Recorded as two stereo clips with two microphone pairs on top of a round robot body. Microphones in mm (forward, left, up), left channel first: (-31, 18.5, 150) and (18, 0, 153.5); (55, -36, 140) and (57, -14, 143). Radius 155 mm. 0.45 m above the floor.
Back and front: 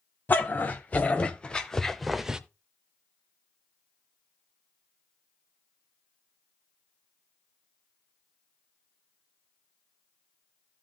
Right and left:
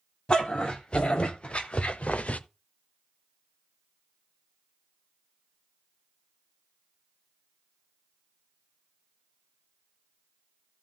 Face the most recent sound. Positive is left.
turn(degrees=-100)